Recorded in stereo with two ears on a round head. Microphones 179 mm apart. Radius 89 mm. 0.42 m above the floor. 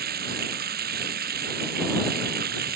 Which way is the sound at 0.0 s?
50° right (ahead or behind).